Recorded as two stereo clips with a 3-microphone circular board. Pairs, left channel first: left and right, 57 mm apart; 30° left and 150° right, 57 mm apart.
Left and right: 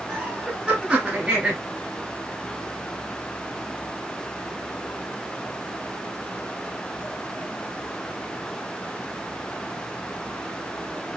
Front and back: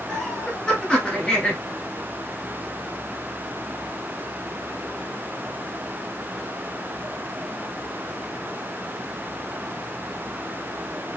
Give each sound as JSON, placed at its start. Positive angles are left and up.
{"t": 0.1, "sound": "laughter", "azimuth_deg": -35, "distance_m": 1.2}